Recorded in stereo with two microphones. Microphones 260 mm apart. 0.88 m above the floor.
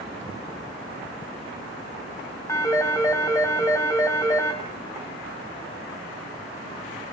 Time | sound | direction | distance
2.5 | a phone ringing | 10° left (ahead or behind) | 3 m